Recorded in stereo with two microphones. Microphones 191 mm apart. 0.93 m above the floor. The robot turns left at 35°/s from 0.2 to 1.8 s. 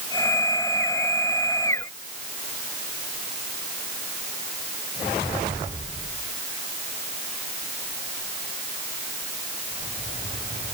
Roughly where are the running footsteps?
No running footsteps in this recording.